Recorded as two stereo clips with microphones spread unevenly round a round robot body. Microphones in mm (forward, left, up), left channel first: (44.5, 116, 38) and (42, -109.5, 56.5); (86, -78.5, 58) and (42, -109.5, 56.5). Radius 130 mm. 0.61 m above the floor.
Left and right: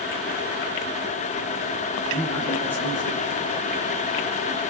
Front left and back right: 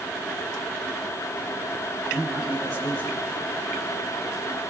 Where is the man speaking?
170° left, 5.5 m.